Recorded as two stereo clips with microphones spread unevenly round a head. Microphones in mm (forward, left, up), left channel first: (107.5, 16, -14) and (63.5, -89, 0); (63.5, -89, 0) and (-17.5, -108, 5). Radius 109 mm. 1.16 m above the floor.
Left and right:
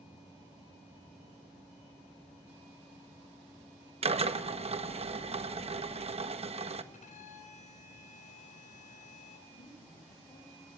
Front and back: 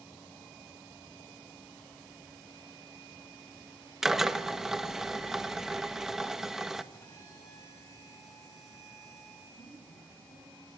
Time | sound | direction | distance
4.0 | a drill | 80° right | 1.4 m
6.9 | a violin | 85° left | 2.5 m
9.5 | a woman speaking | 50° left | 6.5 m